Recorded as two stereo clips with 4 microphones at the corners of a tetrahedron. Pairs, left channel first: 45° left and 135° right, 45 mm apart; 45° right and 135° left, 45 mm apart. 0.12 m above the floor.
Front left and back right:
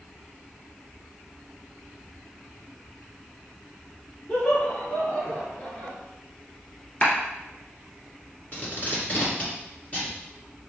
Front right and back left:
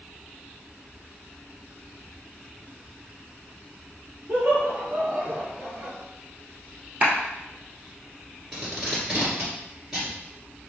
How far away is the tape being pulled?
About 1.8 m.